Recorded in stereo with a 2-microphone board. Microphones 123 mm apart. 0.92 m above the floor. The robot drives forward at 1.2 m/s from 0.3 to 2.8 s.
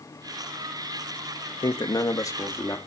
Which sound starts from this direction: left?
A man speaking, at 1.6 s.